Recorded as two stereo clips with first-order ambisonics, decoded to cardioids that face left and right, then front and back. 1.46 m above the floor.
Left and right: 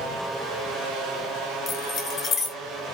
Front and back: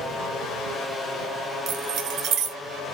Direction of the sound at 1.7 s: 150° left.